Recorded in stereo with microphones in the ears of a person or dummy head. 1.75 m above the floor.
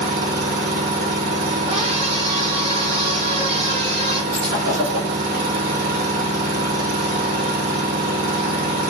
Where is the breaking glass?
30° right (ahead or behind), 3 m.